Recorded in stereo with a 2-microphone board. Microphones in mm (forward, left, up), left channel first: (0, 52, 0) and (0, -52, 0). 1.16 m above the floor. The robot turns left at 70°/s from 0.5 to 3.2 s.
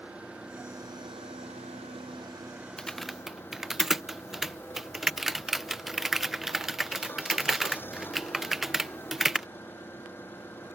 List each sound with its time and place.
0.0 s an engine running: 10° right; by 10.8 s 160° left
2.8 s typing on a keyboard: 10° left (ahead or behind); by 9.5 s 5° right (ahead or behind)